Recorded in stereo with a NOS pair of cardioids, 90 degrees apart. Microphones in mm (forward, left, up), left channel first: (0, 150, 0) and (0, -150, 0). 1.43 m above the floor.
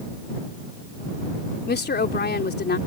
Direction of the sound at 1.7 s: 35° left.